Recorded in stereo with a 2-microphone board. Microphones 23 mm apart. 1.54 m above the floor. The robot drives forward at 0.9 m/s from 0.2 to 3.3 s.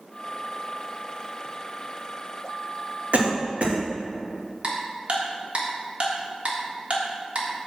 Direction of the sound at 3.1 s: 55° right (ahead or behind).